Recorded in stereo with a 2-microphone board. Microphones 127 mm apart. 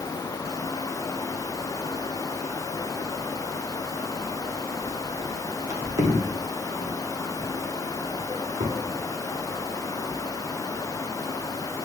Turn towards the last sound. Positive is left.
turn(degrees=-60)  # may be behind; listen again after turning